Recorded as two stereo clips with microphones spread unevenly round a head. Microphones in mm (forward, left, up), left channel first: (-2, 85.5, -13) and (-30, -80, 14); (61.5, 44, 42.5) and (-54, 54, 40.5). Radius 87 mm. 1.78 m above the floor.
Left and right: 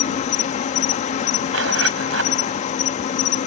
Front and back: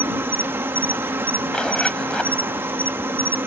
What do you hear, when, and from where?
0.0 s an insect: 115° left
1.5 s a zipper: 90° right